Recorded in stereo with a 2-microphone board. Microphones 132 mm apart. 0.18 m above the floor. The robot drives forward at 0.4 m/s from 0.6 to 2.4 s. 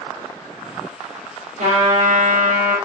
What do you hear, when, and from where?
1.6 s a trumpet: 70° right (ahead or behind), 3.5 m; by 2.7 s 75° right (ahead or behind), 3.5 m